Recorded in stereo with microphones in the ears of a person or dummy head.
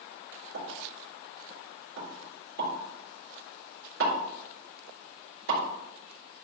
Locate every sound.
0.5 s a pop: 70° right (ahead or behind), 4 m